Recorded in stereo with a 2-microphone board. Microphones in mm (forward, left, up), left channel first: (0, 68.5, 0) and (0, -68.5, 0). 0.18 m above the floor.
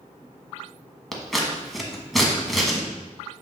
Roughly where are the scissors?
Centre.